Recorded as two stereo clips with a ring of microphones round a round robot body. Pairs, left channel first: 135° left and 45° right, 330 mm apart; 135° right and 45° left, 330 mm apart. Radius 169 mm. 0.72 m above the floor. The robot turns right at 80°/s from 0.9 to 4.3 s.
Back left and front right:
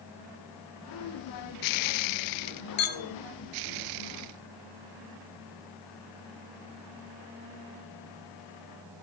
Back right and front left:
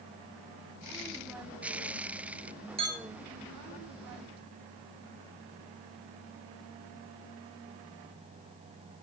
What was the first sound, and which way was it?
A clink, 115° left.